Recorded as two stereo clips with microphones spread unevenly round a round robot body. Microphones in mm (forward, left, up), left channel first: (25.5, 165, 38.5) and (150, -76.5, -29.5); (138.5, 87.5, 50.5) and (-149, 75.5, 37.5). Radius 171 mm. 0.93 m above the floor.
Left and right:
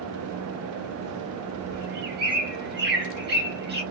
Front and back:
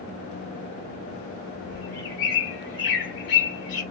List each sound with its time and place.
1.7 s a bird: 5° right, 1.5 m